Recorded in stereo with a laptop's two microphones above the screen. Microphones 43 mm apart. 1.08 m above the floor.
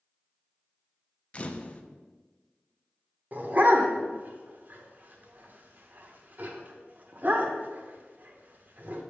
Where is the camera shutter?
30° left (ahead or behind), 0.5 m.